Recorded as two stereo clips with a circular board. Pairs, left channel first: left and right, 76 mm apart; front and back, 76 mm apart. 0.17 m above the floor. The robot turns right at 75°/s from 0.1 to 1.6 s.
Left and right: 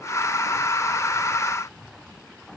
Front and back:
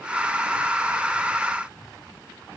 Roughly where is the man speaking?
I don't hear a man speaking.